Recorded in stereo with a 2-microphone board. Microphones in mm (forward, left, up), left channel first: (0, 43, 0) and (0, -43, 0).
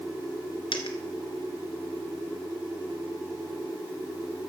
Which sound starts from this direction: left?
A dropped coin, at 0.7 s.